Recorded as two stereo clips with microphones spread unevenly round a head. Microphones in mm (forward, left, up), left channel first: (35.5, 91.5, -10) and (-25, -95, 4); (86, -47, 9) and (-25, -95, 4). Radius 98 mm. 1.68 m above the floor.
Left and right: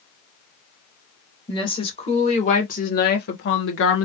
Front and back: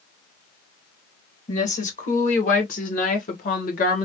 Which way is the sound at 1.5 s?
5° left.